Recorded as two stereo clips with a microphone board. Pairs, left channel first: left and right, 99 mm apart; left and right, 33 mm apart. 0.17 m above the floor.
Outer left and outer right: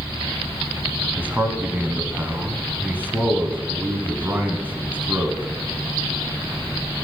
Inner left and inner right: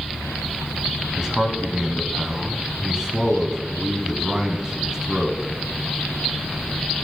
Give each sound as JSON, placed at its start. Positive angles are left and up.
{"t": 1.2, "sound": "a man speaking", "side_deg": -20, "distance_m": 1.0}